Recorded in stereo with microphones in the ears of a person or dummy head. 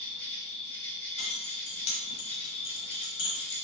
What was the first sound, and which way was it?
An insect, 10° left (ahead or behind).